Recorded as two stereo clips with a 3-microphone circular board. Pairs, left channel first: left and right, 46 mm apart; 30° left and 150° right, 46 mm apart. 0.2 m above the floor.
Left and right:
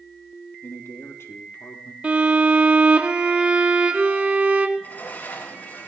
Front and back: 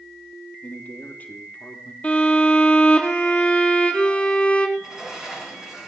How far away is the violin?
About 4 m.